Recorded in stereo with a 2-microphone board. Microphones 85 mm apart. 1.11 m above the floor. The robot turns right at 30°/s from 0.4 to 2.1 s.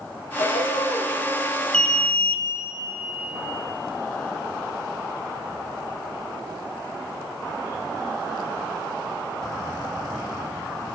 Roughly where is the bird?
Left.